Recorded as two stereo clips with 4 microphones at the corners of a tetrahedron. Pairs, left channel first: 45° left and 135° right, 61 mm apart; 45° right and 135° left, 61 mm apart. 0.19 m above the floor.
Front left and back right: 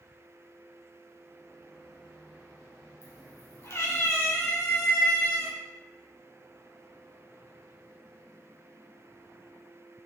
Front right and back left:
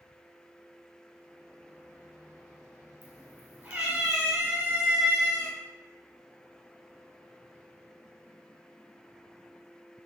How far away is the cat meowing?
About 1.3 m.